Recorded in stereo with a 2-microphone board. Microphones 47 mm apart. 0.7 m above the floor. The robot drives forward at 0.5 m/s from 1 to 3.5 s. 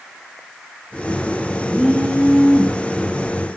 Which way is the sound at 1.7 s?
15° left (ahead or behind).